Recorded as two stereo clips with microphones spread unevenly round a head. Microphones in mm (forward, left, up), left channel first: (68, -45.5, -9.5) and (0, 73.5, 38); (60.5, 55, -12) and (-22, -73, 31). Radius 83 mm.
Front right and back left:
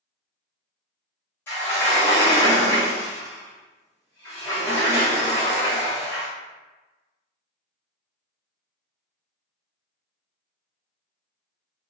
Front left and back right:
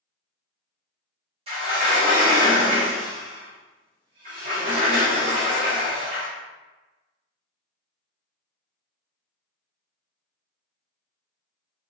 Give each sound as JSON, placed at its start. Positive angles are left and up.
{"t": 1.5, "sound": "a sliding door", "azimuth_deg": -150, "distance_m": 1.0}